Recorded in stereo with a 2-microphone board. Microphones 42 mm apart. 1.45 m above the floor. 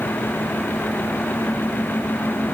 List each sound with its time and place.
Only background noise.